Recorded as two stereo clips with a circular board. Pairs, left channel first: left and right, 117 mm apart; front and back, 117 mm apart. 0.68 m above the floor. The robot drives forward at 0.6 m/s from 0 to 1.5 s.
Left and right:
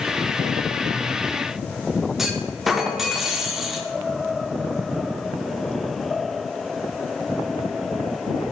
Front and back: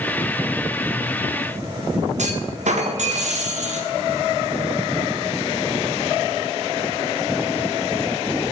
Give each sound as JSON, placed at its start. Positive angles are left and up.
{"t": 2.2, "sound": "a clunk", "azimuth_deg": -175, "distance_m": 0.7}